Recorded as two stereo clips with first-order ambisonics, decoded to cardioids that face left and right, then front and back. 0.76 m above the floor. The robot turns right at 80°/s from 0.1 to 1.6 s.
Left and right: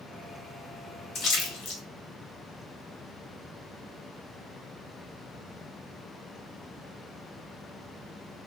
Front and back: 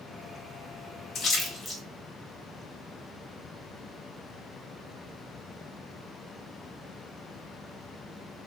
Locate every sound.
1.1 s a splash: 55° left, 0.8 m; by 1.8 s 90° left, 0.8 m